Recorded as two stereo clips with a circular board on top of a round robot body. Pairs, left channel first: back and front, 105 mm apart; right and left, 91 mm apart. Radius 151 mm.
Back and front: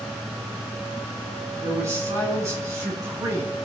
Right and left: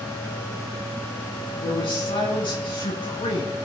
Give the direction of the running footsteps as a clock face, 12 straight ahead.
I don't hear running footsteps.